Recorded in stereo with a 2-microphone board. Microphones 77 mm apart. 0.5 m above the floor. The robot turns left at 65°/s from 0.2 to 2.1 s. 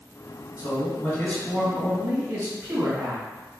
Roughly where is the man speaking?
Ahead left.